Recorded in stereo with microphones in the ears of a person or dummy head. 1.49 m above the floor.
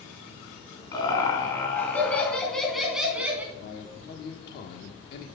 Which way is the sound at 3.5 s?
60° left (ahead or behind).